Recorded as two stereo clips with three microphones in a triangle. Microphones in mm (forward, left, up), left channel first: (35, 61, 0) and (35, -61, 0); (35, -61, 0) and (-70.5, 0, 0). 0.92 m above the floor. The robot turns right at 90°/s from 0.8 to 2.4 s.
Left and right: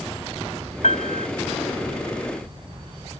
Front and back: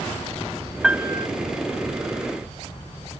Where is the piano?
65° left; by 1.3 s 105° left.